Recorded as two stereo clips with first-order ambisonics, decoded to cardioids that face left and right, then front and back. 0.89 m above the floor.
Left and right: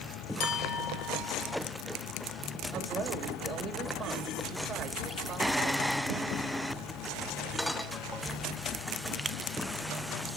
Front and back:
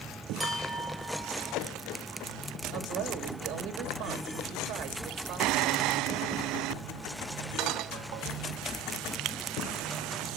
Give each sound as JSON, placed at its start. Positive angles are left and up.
{"t": 0.4, "sound": "a clink", "azimuth_deg": 90, "distance_m": 1.6}
{"t": 2.7, "sound": "a woman speaking", "azimuth_deg": -155, "distance_m": 1.7}